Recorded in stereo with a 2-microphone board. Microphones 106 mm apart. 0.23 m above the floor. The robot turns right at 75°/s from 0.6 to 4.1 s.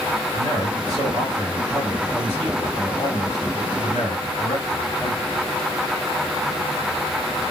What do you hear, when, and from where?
0.3 s a man speaking: 95° right, 2 m; by 5.3 s 165° left, 2 m